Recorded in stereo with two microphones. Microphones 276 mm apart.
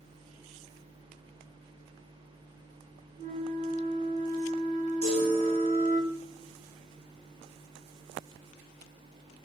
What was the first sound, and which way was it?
A flute, 30° right (ahead or behind).